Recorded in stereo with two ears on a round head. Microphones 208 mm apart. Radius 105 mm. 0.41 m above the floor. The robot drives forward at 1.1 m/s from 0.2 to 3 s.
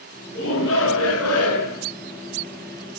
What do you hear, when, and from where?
0.3 s a shout: 55° left (ahead or behind), 4.5 m; by 1.9 s 75° left (ahead or behind), 4 m